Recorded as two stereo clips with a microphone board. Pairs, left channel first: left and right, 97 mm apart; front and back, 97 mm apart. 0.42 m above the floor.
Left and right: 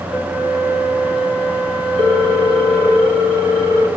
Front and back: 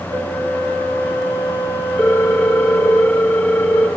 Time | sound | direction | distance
0.1 | a flute | 165° left | 2.5 m
2.0 | a ringtone | 85° left | 3 m